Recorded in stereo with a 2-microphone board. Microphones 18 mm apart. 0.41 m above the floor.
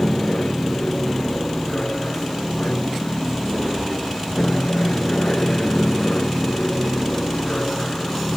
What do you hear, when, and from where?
0.0 s an aircraft: 60° left (ahead or behind); by 8.4 s 70° left (ahead or behind)